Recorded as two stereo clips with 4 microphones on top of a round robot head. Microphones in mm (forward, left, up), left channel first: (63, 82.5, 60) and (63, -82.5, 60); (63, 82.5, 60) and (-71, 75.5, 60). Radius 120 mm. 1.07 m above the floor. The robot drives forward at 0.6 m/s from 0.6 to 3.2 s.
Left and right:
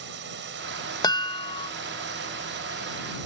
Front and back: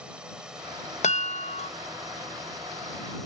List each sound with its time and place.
0.0 s a drone: 95° right; by 3.3 s 85° right
1.0 s a chime: 25° left; by 1.7 s 35° left